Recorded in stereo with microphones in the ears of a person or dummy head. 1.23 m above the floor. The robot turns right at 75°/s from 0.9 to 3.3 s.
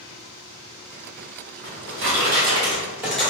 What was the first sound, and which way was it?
A drawer, 115° right.